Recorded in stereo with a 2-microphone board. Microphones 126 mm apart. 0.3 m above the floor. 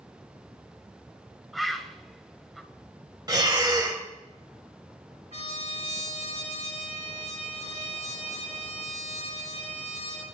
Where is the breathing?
30° right (ahead or behind), 0.9 m.